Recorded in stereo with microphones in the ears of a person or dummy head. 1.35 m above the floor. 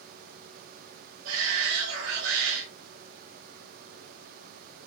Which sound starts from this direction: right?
A shout, at 1.2 s.